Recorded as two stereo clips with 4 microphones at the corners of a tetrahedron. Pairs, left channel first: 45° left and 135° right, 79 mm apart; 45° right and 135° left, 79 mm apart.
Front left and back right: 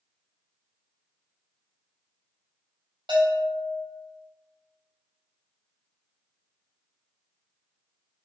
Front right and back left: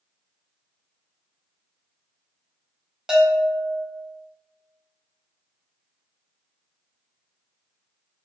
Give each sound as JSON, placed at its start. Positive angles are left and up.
{"t": 3.1, "sound": "a bell", "azimuth_deg": -140, "distance_m": 4.5}